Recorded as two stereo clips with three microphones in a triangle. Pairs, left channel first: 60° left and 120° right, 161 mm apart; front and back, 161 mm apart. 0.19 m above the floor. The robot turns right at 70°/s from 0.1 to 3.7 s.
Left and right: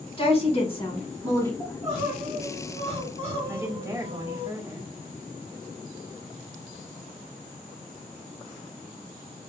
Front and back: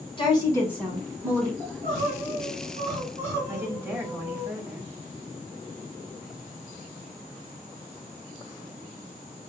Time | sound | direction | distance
0.2 | a woman speaking | 35° left | 1.5 m
1.6 | crying | 135° left | 2 m
3.5 | a woman speaking | 155° right | 1.1 m